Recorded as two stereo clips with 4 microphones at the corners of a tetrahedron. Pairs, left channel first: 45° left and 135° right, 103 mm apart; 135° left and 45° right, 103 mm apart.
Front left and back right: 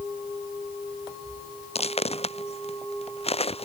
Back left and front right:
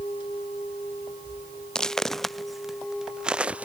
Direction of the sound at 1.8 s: 50° left.